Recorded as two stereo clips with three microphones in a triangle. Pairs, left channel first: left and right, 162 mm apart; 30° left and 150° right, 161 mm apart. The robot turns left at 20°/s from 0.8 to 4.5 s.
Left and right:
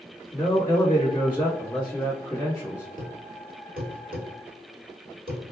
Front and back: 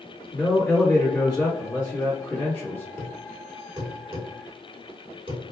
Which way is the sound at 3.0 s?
65° right.